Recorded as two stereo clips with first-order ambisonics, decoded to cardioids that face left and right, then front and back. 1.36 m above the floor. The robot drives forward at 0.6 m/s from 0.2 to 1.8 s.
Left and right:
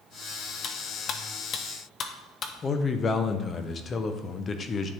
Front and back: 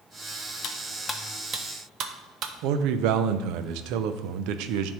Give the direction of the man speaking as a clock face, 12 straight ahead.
7 o'clock.